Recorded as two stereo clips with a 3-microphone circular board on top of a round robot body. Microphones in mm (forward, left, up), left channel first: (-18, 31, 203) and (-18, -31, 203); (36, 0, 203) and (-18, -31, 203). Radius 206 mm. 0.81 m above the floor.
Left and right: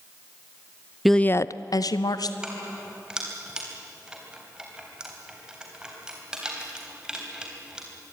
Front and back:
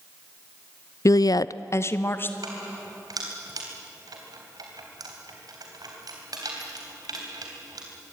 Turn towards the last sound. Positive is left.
turn(degrees=-170)